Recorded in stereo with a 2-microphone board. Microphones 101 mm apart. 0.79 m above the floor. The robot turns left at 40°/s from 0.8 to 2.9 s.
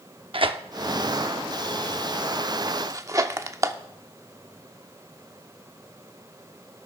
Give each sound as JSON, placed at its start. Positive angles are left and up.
{"t": 0.3, "sound": "tearing paper", "side_deg": -60, "distance_m": 0.6}